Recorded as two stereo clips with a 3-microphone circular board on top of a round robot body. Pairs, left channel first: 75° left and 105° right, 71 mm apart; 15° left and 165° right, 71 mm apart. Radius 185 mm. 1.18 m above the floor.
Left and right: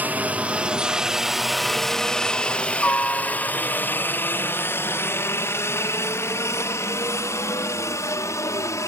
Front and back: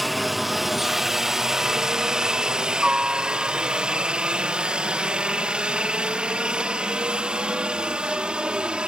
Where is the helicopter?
75° right; by 8.9 s 120° left.